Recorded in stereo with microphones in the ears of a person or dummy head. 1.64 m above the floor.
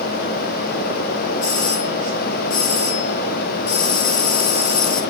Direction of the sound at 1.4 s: 85° left.